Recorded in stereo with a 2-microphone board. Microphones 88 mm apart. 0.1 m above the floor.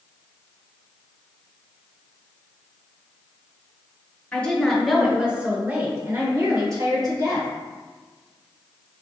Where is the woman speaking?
15° left (ahead or behind), 1.4 m; by 7.5 s 50° right (ahead or behind), 2.5 m.